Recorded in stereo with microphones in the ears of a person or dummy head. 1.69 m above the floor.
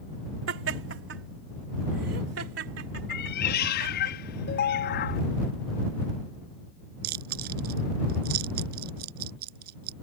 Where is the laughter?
80° right; by 4.1 s 70° right (ahead or behind).